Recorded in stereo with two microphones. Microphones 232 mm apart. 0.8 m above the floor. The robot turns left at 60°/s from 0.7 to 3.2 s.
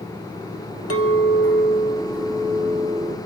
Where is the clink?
95° left, 1.3 m; by 3.2 s 40° right, 1.3 m.